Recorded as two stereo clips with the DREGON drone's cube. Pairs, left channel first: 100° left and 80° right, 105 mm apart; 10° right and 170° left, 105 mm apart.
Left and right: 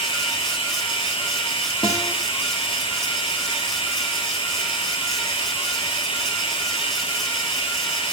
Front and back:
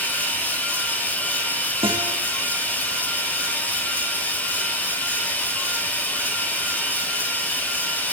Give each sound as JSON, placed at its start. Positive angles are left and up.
{"t": 0.0, "sound": "running water", "azimuth_deg": 65, "distance_m": 4.0}
{"t": 1.8, "sound": "a guitar", "azimuth_deg": 140, "distance_m": 10.0}